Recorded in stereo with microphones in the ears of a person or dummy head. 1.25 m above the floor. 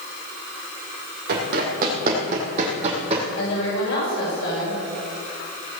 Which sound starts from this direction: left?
A woman speaking, at 3.4 s.